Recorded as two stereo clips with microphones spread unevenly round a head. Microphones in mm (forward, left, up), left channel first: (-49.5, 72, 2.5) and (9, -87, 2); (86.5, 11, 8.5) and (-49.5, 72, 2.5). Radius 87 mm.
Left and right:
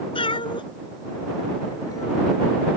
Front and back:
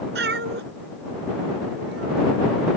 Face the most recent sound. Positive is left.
turn(degrees=180)